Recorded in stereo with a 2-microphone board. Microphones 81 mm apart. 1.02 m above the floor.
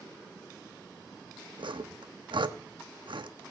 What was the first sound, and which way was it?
Sawing, 80° right.